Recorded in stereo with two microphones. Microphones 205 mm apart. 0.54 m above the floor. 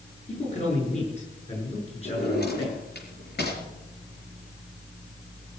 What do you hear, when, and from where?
0.3 s a man speaking: 35° left (ahead or behind), 8 m; by 2.8 s 30° left (ahead or behind), 6.5 m
2.0 s a drawer: 60° left (ahead or behind), 4.5 m